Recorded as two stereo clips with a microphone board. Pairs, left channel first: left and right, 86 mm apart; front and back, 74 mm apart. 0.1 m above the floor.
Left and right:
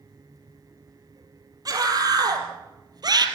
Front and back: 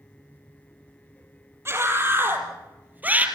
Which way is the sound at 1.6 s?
125° right.